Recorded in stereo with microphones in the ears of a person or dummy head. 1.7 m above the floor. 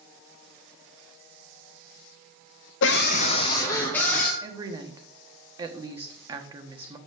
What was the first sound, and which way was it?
A scream, 65° left (ahead or behind).